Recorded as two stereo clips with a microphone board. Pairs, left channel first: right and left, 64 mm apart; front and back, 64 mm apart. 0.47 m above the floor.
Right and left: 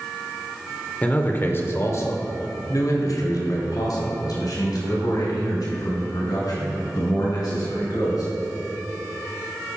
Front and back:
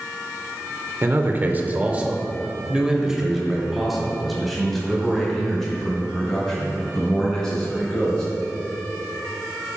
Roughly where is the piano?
I don't hear a piano.